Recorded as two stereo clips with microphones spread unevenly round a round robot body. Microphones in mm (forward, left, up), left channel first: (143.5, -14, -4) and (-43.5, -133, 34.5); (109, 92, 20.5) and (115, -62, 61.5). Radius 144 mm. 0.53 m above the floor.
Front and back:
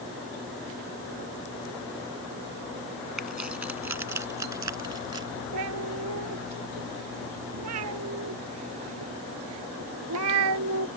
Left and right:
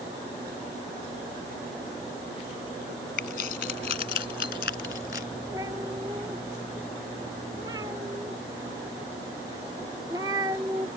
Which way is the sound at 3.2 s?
125° left.